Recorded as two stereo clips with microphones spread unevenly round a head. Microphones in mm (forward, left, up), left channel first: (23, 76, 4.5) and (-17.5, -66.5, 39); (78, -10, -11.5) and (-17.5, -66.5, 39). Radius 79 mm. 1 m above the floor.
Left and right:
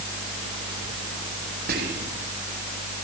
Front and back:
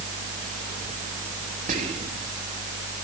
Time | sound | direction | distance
1.7 | whispering | 140° right | 1.5 m